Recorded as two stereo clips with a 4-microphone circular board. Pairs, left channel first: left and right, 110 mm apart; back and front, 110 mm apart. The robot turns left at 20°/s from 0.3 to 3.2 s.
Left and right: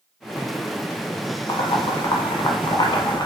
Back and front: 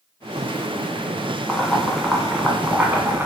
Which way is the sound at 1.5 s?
95° left.